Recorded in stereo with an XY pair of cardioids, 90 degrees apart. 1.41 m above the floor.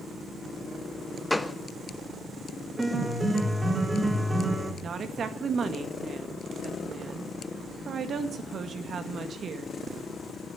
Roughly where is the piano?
Ahead right.